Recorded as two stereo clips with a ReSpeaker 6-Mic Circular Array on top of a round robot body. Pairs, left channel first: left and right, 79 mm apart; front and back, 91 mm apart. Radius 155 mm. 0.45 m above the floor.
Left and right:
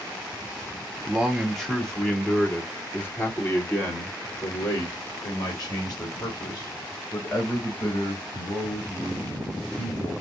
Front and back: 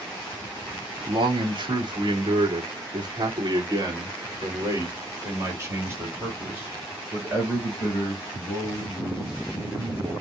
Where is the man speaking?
175° right, 2 m; by 10.1 s 100° left, 4.5 m.